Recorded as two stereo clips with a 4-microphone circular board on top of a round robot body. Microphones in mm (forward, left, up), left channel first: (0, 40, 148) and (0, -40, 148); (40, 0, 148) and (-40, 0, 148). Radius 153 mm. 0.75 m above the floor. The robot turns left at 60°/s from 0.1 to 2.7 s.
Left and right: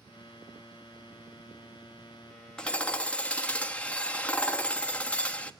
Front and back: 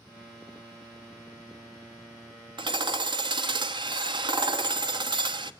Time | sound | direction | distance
2.6 | hammering | 170° left | 1.3 m